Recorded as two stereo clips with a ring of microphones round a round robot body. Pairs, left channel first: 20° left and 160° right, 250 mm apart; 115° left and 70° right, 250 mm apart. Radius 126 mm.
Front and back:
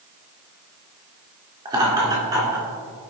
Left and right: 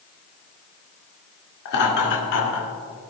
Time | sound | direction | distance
1.6 | laughter | 130° left | 2 m